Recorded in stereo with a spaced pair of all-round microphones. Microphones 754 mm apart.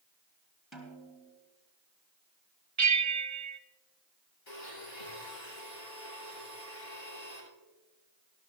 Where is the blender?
80° left, 8 m.